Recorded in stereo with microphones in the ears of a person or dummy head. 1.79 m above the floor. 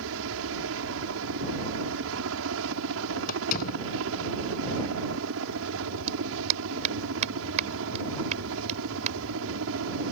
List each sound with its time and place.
0.0 s a helicopter: 70° right (ahead or behind)
3.3 s a door slam: 45° left (ahead or behind)
6.1 s a clap: 35° right (ahead or behind)